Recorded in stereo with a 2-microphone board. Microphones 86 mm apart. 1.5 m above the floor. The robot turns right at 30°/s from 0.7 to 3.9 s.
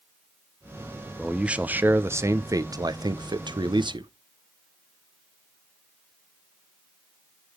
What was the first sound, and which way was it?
A man speaking, 175° right.